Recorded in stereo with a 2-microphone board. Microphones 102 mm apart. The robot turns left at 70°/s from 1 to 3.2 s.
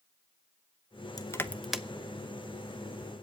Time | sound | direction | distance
1.2 | crushing | 35° left (ahead or behind) | 0.7 m